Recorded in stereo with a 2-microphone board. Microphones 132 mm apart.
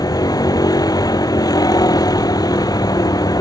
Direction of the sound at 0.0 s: 30° left (ahead or behind).